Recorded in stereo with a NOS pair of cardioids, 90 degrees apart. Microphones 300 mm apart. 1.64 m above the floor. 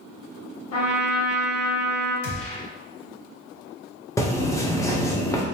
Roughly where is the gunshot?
Ahead left.